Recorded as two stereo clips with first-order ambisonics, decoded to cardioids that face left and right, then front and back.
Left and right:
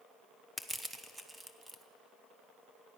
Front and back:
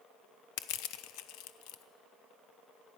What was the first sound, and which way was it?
Crushing, 5° right.